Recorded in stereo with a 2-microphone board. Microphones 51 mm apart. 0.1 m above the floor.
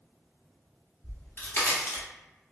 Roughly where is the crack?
Left.